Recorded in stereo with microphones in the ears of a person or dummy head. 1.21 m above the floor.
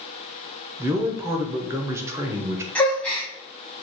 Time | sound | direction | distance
0.8 | a man speaking | 5° right (ahead or behind) | 0.7 m
2.8 | a gasp | centre (ahead or behind) | 0.7 m